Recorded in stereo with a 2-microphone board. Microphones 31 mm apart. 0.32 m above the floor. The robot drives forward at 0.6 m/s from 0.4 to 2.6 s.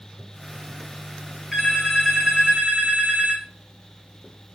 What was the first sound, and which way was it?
A phone ringing, 15° right (ahead or behind).